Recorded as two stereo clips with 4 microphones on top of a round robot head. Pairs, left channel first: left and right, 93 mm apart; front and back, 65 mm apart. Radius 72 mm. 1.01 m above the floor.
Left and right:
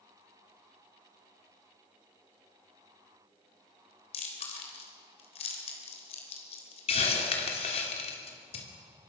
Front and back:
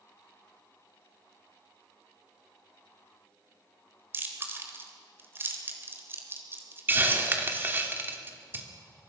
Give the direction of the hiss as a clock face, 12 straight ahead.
8 o'clock.